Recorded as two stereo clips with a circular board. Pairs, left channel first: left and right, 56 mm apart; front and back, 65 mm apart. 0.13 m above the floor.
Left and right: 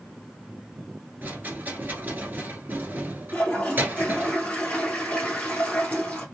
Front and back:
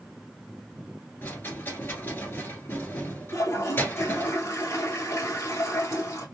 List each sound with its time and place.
1.2 s a rattle: 45° right, 1.7 m
3.3 s a toilet flushing: 30° left, 1.5 m